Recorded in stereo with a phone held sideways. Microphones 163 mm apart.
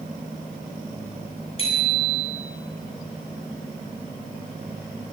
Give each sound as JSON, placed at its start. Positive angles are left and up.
{"t": 1.6, "sound": "a bicycle bell", "side_deg": 35, "distance_m": 7.5}